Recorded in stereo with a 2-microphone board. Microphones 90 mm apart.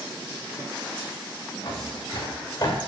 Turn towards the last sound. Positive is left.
turn(degrees=40)  # may be behind; listen again after turning